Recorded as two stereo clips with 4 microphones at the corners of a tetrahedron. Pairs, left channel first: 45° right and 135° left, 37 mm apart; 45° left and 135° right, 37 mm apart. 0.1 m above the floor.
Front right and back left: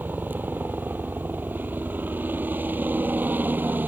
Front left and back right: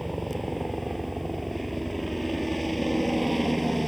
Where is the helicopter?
135° left.